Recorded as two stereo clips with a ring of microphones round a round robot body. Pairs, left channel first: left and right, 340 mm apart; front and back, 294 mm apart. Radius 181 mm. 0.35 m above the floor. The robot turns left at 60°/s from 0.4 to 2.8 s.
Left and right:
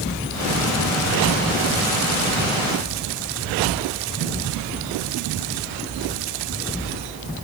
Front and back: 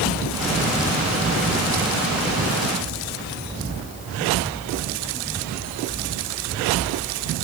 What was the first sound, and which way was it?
Only background noise.